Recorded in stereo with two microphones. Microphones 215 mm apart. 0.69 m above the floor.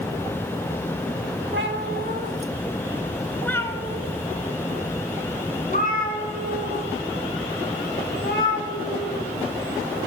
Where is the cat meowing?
60° right (ahead or behind), 0.8 m; by 9.3 s 50° left (ahead or behind), 3.5 m.